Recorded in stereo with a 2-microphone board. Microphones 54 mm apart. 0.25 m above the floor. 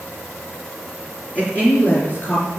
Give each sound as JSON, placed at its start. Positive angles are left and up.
{"t": 1.4, "sound": "a woman speaking", "side_deg": 30, "distance_m": 3.0}